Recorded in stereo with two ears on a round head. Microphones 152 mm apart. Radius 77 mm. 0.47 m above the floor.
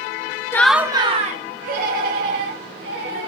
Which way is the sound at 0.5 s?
15° left (ahead or behind).